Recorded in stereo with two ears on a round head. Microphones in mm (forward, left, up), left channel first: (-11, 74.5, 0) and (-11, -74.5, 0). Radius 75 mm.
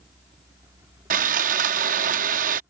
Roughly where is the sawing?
Right.